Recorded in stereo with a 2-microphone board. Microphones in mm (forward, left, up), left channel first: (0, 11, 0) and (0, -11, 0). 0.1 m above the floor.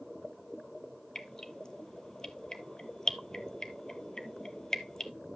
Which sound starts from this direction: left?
Dripping, at 1.1 s.